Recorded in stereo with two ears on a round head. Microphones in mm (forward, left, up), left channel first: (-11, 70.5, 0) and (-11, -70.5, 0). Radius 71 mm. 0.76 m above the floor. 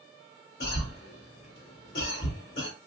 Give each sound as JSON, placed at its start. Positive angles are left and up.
{"t": 0.6, "sound": "a cough", "side_deg": 65, "distance_m": 1.3}